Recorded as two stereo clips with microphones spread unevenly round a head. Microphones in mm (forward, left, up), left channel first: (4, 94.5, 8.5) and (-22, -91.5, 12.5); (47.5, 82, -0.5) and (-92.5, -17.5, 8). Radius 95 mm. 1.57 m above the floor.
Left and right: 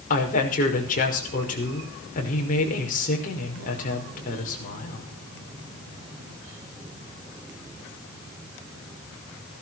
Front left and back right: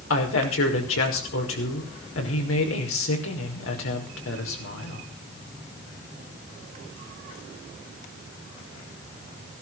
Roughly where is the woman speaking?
Ahead left.